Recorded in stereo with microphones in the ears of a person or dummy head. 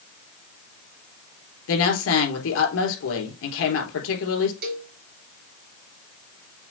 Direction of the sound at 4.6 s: 55° right (ahead or behind).